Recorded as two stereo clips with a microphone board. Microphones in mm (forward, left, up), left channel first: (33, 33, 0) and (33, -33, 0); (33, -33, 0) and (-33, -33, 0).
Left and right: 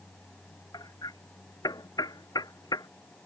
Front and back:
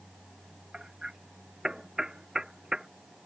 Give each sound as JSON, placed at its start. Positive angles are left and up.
{"t": 0.7, "sound": "hammering", "azimuth_deg": 100}